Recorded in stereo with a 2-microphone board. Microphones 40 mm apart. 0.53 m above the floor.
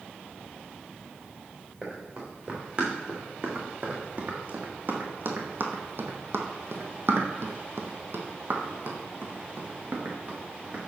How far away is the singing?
No singing in this recording.